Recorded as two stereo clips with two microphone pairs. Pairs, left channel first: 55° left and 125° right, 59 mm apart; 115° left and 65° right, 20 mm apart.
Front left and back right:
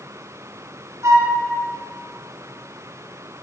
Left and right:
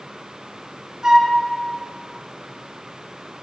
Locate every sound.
1.0 s a flute: 115° right, 1.6 m